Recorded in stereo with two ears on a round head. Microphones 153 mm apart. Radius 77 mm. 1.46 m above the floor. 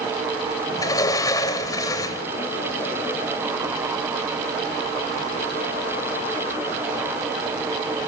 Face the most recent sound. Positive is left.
turn(degrees=20)  # may be behind; listen again after turning